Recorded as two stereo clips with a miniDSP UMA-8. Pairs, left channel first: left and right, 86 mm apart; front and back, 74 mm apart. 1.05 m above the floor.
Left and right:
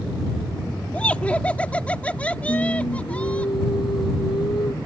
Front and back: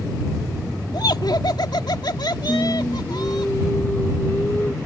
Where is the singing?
65° left.